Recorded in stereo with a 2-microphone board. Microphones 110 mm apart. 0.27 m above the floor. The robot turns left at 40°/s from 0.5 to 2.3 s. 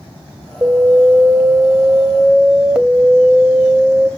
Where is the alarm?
25° right (ahead or behind), 1.4 m; by 4.1 s 10° right (ahead or behind), 1.4 m.